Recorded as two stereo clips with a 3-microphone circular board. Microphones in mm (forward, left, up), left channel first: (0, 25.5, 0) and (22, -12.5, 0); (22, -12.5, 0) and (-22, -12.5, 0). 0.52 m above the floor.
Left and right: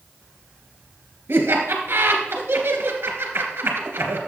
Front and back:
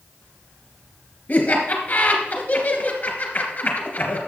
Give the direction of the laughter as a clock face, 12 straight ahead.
1 o'clock.